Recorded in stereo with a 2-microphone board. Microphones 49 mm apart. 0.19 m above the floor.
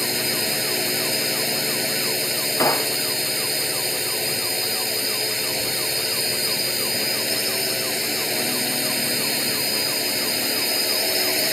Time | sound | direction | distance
0.0 | a drone | centre (ahead or behind) | ?
2.6 | a gunshot | 80° left | ?